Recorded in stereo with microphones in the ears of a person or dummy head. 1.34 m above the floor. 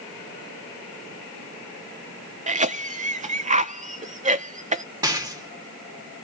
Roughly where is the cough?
Right.